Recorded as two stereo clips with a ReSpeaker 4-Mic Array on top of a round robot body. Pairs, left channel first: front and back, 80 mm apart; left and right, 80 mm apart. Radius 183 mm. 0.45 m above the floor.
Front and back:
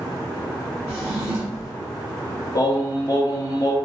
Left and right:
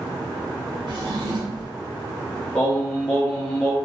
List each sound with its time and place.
0.9 s a drawer: 120° right, 1.5 m
2.5 s singing: 15° left, 1.2 m